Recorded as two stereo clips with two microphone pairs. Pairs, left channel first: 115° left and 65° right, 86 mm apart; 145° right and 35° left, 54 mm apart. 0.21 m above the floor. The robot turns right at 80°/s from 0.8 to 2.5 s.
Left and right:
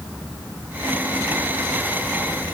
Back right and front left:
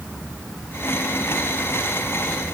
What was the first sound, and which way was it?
Only background noise.